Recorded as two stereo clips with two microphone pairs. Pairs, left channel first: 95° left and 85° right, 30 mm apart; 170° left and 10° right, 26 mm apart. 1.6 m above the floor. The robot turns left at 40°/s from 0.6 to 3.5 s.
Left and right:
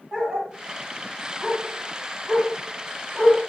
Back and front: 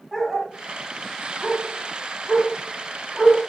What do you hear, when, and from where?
0.1 s a dog barking: 80° right, 1.5 m; by 3.4 s 165° left, 1.5 m